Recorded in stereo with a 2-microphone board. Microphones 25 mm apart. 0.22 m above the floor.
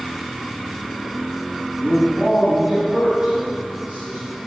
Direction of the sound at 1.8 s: 20° right (ahead or behind).